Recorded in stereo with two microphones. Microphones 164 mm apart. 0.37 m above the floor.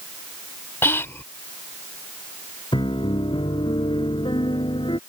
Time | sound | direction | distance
0.8 | whispering | 15° left (ahead or behind) | ?
2.7 | a piano | 30° left (ahead or behind) | ?